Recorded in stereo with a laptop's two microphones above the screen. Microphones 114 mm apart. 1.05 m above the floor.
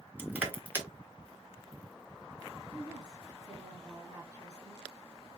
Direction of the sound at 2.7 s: 30° right (ahead or behind).